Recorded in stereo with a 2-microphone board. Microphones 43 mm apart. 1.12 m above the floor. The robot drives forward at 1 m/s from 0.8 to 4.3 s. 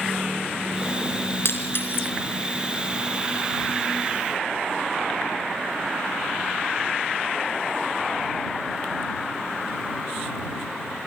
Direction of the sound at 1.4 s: 65° left (ahead or behind).